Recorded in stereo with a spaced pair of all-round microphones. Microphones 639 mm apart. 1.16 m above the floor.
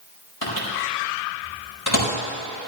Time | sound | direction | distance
0.4 | a microwave | 30° left (ahead or behind) | 4.5 m